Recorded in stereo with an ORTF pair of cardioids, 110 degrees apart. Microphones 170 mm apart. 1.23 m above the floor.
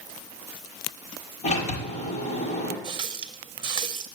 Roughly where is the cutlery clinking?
I don't hear cutlery clinking.